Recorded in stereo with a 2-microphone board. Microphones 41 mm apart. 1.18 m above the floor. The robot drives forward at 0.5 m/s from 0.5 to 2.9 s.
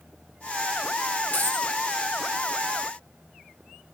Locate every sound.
1.3 s a dropped coin: 55° left (ahead or behind), 2.5 m